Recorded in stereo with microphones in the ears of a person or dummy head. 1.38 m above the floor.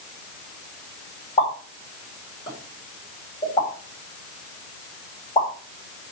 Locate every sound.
1.4 s a pop: 25° left (ahead or behind), 4.5 m